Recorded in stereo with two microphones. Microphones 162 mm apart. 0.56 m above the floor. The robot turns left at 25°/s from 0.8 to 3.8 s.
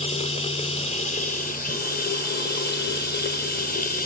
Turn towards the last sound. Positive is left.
turn(degrees=65)